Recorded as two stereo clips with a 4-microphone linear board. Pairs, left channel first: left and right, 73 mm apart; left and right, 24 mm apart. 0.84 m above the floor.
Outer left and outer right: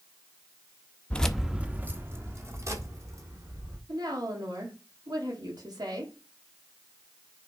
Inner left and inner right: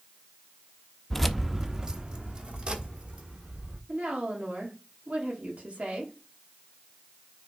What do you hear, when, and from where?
1.1 s keys jangling: 20° left (ahead or behind), 0.5 m; by 3.8 s 50° right (ahead or behind), 2.5 m
3.9 s a woman speaking: 70° right (ahead or behind), 2 m